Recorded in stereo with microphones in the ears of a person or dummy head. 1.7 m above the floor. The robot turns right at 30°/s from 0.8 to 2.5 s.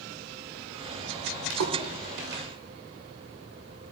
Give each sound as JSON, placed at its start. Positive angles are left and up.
{"t": 1.5, "sound": "a splash", "side_deg": -65, "distance_m": 2.5}